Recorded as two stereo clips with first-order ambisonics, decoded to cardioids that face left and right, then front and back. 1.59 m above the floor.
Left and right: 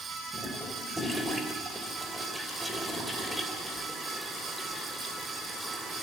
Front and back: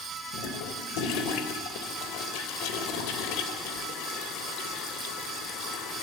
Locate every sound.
0.3 s a toilet flushing: 5° right, 3 m